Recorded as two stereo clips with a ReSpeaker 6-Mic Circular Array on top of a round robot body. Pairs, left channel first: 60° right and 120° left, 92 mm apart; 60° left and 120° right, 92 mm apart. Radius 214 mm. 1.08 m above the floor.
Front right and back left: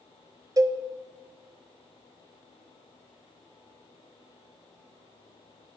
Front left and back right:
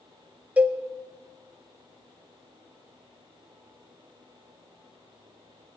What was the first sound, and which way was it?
A cowbell, 165° left.